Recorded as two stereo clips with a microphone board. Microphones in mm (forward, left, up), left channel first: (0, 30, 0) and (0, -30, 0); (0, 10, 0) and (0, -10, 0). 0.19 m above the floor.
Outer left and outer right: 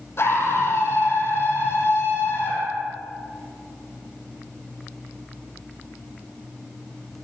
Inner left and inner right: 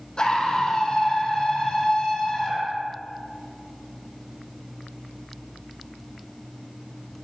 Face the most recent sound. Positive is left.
turn(degrees=40)  # may be behind; listen again after turning